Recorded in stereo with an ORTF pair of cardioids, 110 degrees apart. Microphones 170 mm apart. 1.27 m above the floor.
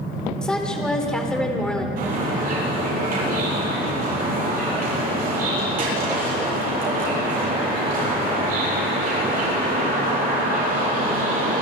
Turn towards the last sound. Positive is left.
turn(degrees=-55)